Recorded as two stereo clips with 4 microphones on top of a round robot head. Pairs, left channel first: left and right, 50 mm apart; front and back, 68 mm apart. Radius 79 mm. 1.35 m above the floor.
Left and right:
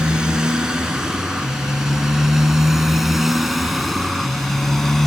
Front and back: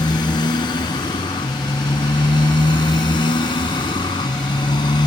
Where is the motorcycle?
15° right; by 5.1 s 5° left.